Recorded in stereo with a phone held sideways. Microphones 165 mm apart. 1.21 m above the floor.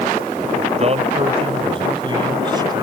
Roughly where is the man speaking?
Right.